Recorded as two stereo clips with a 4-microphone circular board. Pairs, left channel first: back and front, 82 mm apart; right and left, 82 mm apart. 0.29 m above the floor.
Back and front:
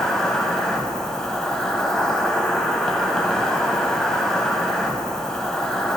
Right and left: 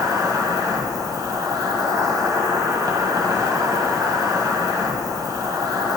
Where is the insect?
100° left, 1.0 m.